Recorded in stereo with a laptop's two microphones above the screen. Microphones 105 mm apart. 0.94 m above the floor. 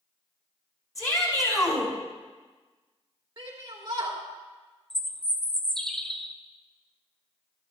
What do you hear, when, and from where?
0.9 s a shout: 30° left (ahead or behind), 4.5 m
3.4 s a shout: 45° right (ahead or behind), 2.5 m
4.9 s a bird: 5° left (ahead or behind), 0.5 m